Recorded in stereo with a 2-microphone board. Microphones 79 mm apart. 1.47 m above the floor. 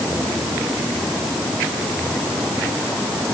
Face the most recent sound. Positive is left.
No sound to turn to.